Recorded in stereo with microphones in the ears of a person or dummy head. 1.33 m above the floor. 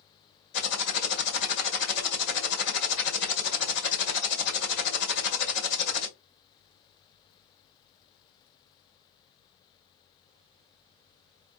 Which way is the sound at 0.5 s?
65° left (ahead or behind).